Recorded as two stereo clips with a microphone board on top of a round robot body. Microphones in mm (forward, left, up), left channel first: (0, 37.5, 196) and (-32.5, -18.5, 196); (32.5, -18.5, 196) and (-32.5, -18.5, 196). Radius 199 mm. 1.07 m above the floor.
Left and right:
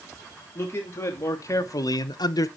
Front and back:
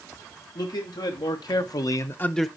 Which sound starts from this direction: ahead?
A man speaking, at 0.6 s.